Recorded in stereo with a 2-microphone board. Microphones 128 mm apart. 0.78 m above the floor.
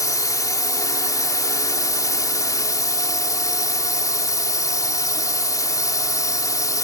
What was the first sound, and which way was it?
A drone, 30° left (ahead or behind).